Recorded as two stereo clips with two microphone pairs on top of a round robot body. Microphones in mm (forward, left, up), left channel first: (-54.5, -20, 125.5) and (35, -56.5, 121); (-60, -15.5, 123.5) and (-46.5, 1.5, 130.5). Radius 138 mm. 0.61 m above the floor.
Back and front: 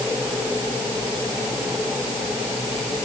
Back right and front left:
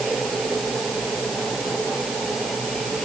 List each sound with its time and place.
Only background noise.